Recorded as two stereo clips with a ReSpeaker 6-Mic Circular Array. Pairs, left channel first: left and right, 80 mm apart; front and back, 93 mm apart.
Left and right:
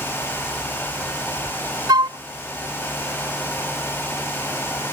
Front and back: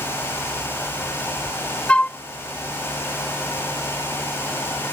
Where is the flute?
75° right.